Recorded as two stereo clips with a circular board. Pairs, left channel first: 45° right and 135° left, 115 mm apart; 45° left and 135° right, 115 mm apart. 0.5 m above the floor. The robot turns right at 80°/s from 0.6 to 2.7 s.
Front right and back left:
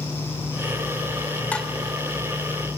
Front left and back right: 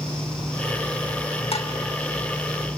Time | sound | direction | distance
1.5 | dishes clattering | 30° left | 1.0 m